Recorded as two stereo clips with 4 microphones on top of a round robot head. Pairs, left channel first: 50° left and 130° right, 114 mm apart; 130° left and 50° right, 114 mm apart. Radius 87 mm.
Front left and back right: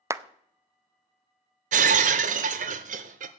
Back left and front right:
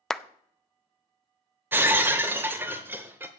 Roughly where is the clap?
Behind right.